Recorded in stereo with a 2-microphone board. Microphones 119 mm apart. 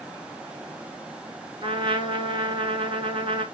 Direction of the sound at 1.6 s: 45° right (ahead or behind).